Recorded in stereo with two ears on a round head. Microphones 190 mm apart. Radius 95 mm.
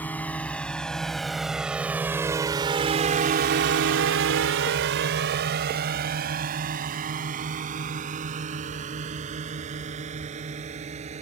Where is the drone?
10° left (ahead or behind); by 11.2 s 35° right (ahead or behind).